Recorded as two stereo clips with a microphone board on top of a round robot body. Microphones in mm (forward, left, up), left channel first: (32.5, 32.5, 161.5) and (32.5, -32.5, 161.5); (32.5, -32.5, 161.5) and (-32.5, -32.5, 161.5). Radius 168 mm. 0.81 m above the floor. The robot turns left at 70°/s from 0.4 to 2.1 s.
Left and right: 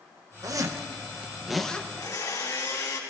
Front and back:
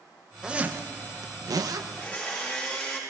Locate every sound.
0.4 s a zipper: 100° right, 1.0 m; by 1.8 s 160° left, 1.0 m
1.9 s a blender: 75° left, 3.5 m; by 3.0 s 65° left, 3.5 m